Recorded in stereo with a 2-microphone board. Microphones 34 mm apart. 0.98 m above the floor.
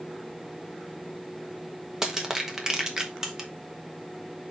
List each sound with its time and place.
2.0 s crushing: 15° right (ahead or behind), 1.3 m